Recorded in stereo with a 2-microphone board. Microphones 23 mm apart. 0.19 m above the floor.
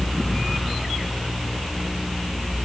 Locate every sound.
Only background noise.